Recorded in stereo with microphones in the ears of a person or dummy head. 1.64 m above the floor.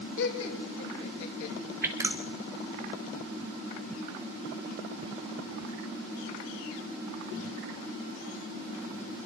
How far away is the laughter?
About 6.5 m.